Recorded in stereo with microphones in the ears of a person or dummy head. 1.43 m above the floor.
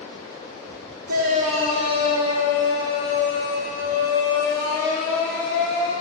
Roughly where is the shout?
Right.